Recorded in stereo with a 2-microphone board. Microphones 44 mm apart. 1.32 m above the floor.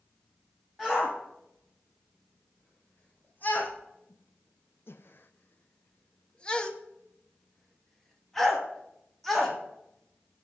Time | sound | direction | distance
0.8 | a shout | 25° left (ahead or behind) | 3 m